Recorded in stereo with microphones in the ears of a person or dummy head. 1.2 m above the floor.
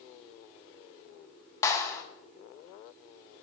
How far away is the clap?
About 0.6 m.